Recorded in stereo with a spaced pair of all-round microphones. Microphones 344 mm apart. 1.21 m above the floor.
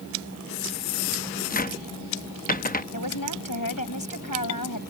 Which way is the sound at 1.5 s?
25° left (ahead or behind).